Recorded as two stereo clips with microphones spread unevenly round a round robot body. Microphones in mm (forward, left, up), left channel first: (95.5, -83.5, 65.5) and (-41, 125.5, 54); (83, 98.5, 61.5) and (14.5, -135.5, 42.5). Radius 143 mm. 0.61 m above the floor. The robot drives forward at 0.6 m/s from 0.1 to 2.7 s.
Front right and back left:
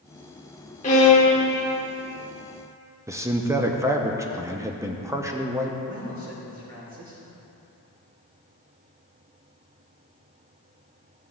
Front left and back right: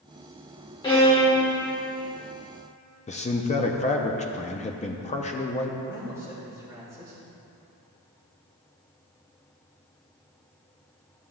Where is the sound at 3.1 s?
75° left, 0.7 m.